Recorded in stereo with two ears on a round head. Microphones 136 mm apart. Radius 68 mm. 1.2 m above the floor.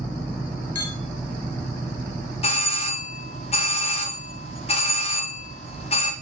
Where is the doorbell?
40° left (ahead or behind), 2.0 m.